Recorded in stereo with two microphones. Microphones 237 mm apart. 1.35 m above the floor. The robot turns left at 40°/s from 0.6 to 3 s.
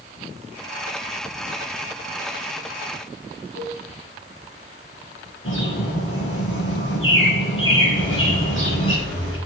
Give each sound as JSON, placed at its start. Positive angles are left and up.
{"t": 3.5, "sound": "a cowbell", "side_deg": 50, "distance_m": 8.0}
{"t": 5.5, "sound": "a bird", "side_deg": 60, "distance_m": 7.5}
{"t": 8.0, "sound": "a microwave", "side_deg": 60, "distance_m": 8.0}